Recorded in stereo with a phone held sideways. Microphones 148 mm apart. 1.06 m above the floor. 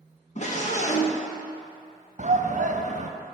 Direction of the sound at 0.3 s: 50° left (ahead or behind).